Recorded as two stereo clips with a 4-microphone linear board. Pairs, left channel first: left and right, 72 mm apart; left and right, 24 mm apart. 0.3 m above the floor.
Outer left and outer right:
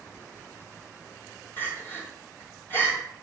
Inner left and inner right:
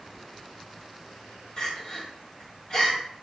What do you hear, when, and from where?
1.6 s crying: 35° left (ahead or behind), 3 m